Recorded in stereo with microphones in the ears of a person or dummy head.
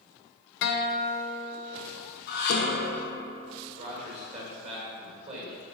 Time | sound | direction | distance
0.6 | a guitar | 55° left (ahead or behind) | 0.6 m
2.3 | dishes clattering | 60° left (ahead or behind) | 1.1 m
3.8 | a man speaking | 35° right (ahead or behind) | 1.9 m